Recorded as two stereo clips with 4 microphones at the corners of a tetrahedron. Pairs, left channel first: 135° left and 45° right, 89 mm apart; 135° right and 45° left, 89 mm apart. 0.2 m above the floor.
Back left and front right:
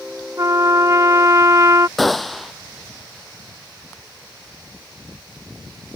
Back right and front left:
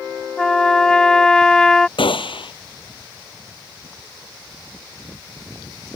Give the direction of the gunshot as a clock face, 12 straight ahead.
5 o'clock.